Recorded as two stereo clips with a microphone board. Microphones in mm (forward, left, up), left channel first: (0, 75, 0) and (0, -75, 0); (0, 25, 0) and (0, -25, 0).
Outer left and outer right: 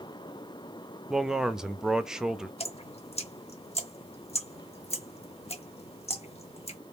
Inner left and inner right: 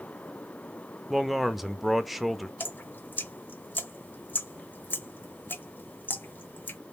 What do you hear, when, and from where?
1.1 s a man speaking: 5° right (ahead or behind), 0.5 m
2.6 s dripping: 45° left (ahead or behind), 0.6 m